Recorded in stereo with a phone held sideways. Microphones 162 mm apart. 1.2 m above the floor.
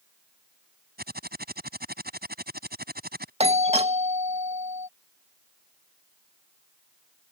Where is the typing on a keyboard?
85° right.